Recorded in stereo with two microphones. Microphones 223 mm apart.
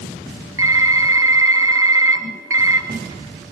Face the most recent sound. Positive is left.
turn(degrees=-75)  # may be behind; listen again after turning